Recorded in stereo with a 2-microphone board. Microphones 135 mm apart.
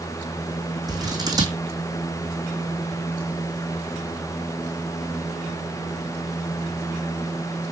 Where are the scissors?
25° right (ahead or behind), 2 m.